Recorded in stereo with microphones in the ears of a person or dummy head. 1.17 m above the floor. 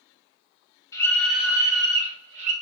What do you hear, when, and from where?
0.9 s a scream: 20° left (ahead or behind), 1.7 m; by 2.5 s 40° right (ahead or behind), 2.5 m